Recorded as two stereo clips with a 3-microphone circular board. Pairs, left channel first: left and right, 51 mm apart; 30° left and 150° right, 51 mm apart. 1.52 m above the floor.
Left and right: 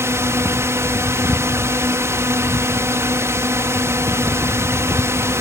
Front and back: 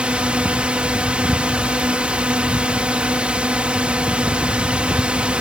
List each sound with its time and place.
0.0 s a drone: 85° right